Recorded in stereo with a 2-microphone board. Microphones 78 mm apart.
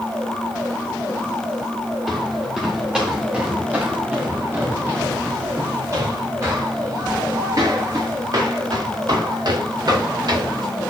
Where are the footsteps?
5° right (ahead or behind), 3.5 m; by 10.7 s 55° right (ahead or behind), 6.5 m.